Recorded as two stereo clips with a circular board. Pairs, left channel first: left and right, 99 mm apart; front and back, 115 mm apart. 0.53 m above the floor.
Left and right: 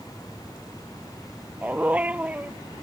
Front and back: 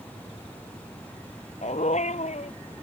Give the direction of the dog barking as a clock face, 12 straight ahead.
12 o'clock.